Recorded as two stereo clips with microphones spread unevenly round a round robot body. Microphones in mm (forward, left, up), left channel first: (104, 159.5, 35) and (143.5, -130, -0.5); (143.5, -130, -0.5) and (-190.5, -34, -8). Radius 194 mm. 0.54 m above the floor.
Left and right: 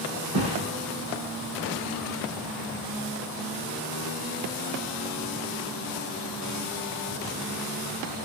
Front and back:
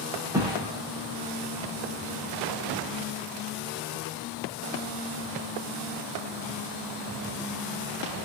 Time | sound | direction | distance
0.3 | a thud | 115° right | 9 m